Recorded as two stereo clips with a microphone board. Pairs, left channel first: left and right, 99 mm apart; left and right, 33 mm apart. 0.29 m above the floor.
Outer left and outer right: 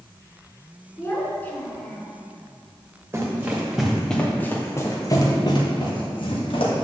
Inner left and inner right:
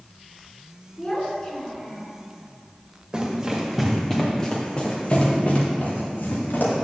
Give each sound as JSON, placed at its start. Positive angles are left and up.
{"t": 1.0, "sound": "a child speaking", "side_deg": 25, "distance_m": 2.5}
{"t": 3.1, "sound": "running footsteps", "side_deg": -25, "distance_m": 3.0}